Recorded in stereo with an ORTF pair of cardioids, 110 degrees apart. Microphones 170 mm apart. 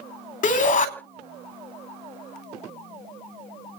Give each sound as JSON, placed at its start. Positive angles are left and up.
{"t": 0.4, "sound": "a shout", "azimuth_deg": 50, "distance_m": 3.5}